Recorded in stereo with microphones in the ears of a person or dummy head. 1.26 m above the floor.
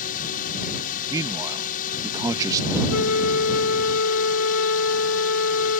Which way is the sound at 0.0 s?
40° left (ahead or behind).